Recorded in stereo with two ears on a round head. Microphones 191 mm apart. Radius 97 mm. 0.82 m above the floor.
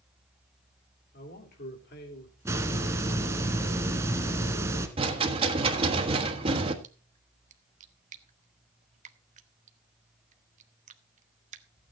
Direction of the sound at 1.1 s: 50° left (ahead or behind).